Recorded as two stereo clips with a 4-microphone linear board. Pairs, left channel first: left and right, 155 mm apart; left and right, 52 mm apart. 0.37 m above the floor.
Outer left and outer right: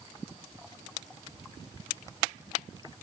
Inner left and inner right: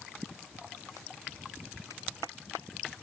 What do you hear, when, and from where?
Only background noise.